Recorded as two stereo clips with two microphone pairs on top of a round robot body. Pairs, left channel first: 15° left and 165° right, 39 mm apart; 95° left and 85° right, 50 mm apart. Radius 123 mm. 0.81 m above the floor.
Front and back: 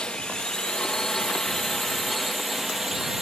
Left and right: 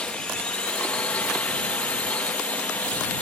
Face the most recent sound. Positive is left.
turn(degrees=105)